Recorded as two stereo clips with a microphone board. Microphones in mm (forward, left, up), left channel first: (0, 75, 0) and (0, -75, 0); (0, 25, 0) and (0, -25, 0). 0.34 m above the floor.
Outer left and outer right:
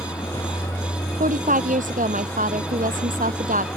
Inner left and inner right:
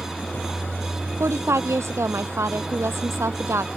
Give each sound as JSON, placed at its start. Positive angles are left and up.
{"t": 0.0, "sound": "a vehicle", "side_deg": 20}
{"t": 1.2, "sound": "a woman speaking", "side_deg": -65}